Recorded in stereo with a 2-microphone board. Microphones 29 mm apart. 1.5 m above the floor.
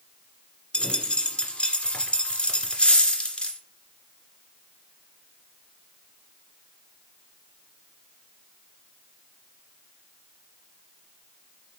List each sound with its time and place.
0.7 s a dropped coin: 40° left (ahead or behind), 1.9 m